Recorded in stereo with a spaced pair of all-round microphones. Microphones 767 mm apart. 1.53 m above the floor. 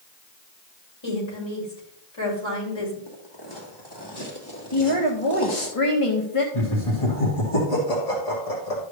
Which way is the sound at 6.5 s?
45° left (ahead or behind).